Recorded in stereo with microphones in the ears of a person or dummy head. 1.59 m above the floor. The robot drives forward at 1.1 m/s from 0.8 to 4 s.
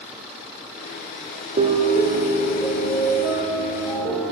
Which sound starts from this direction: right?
A piano, at 1.6 s.